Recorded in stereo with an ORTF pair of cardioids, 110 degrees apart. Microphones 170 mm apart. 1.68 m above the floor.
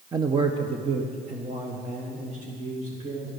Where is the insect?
No insect in this recording.